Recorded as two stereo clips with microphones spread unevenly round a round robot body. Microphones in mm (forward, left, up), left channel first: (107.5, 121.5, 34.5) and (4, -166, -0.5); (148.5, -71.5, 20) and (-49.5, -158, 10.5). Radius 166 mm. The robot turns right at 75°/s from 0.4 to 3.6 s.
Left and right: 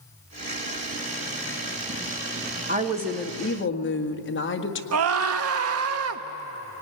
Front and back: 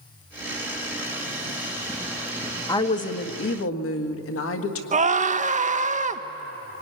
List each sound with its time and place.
2.7 s a woman speaking: 50° right, 1.7 m; by 4.8 s 15° left, 1.7 m
4.9 s a scream: 115° right, 1.3 m